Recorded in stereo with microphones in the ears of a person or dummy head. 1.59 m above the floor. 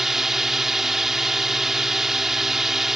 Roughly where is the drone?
Centre.